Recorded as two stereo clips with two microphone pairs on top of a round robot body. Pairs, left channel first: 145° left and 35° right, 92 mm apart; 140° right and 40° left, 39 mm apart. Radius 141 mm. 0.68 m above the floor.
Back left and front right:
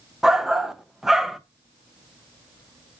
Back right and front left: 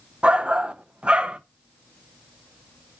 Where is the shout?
45° left, 0.6 m.